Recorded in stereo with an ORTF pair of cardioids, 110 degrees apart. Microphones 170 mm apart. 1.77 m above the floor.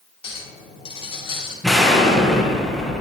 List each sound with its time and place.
0.2 s a clink: 30° left, 3 m
1.6 s an explosion: straight ahead, 1.8 m